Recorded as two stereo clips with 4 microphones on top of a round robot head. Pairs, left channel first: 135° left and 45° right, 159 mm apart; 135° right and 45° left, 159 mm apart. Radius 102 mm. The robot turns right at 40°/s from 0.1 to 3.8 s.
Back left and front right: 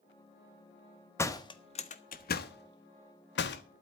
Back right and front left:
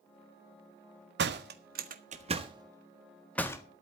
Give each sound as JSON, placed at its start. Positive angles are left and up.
{"t": 1.2, "sound": "a door slam", "azimuth_deg": 60, "distance_m": 1.5}